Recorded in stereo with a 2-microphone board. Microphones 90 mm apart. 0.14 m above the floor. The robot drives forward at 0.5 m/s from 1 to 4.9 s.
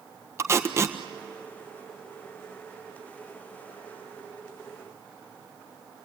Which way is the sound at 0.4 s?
30° right (ahead or behind).